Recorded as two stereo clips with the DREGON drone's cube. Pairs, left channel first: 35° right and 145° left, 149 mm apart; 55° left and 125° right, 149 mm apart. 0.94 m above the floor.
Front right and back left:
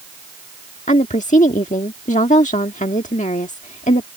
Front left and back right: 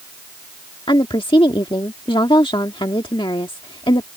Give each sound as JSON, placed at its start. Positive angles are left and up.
{"t": 0.9, "sound": "a woman speaking", "azimuth_deg": 0}